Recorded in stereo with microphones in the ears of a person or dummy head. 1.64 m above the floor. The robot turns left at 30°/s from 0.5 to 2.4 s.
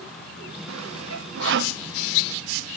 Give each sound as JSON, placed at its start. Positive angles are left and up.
{"t": 0.7, "sound": "sawing", "side_deg": -85}